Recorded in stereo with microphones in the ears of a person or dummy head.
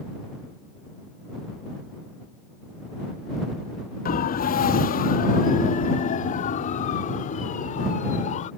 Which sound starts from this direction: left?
A siren, at 4.0 s.